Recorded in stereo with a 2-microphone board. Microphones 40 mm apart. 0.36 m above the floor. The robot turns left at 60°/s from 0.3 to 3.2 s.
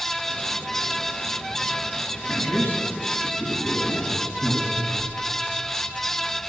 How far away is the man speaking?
About 2 m.